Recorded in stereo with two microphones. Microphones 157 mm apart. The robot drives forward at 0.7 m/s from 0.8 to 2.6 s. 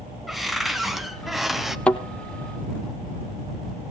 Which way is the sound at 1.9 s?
5° left (ahead or behind).